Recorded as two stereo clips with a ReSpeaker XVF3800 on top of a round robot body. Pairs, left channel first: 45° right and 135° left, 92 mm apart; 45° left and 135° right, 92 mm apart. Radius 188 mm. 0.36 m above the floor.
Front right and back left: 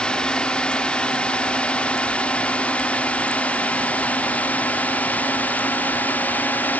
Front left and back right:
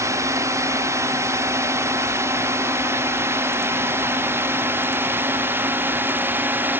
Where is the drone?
120° right; by 6.8 s 95° right.